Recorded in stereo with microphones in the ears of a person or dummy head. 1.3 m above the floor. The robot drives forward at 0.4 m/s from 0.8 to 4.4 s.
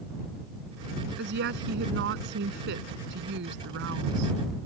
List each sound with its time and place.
1.2 s a woman speaking: 60° right (ahead or behind); by 4.3 s 65° right (ahead or behind)